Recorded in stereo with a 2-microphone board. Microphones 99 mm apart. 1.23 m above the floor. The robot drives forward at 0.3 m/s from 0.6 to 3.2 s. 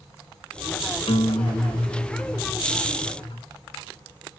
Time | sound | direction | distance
1.1 | a guitar | 75° left (ahead or behind) | 0.7 m